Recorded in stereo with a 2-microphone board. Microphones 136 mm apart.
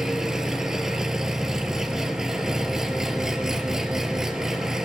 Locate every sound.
0.0 s an engine running: 5° right (ahead or behind), 0.9 m